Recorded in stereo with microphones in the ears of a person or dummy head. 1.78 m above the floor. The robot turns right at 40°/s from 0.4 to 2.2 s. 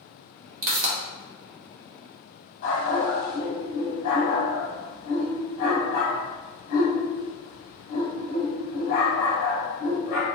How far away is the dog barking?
About 1.7 m.